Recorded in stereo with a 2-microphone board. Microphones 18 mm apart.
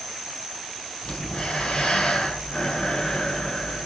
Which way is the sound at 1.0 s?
70° left (ahead or behind).